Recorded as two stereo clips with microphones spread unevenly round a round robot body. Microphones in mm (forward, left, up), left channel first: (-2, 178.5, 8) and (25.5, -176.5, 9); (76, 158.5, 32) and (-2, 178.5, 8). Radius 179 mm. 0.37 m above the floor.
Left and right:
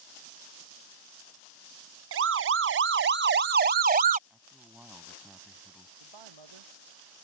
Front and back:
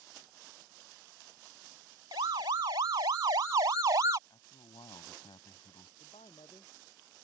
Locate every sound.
2.1 s a siren: 140° right; by 4.2 s 150° right
4.3 s a man speaking: straight ahead
6.0 s a man speaking: 75° right